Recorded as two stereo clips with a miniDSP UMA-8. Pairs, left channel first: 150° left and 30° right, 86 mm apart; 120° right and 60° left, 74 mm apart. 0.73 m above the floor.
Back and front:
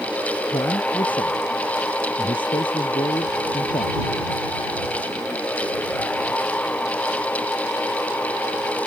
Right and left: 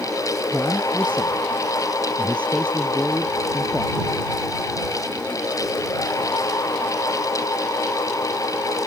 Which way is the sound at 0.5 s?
165° left.